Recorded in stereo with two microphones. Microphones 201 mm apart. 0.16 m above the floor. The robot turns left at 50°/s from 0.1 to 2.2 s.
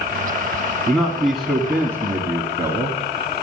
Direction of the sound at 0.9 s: 5° left (ahead or behind).